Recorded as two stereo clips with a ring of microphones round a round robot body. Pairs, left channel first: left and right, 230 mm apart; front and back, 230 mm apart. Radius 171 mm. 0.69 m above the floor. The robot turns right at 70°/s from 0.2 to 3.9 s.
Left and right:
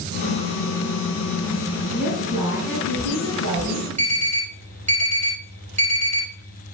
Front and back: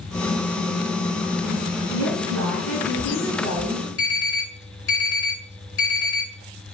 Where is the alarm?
30° right, 5 m.